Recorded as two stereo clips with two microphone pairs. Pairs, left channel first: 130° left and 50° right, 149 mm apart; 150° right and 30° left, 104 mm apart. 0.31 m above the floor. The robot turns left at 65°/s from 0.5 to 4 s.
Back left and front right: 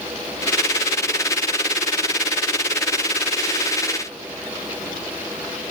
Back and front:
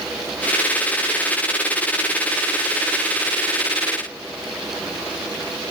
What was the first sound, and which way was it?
Only background noise.